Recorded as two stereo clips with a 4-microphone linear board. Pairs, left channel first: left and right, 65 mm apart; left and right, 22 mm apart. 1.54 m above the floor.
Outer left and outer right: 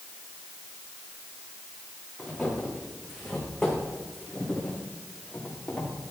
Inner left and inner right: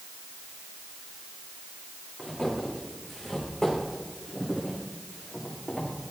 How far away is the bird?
No bird in this recording.